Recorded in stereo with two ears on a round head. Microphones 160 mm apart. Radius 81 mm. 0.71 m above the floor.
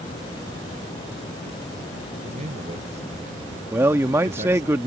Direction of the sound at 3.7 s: 15° right (ahead or behind).